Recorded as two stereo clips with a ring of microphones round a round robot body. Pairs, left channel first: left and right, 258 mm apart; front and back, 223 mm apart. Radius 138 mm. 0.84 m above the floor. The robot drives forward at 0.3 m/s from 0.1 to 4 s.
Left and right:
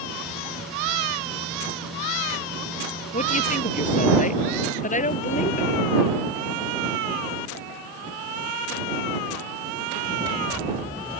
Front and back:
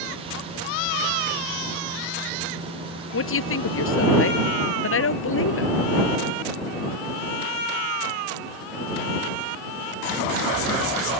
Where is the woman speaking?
25° left.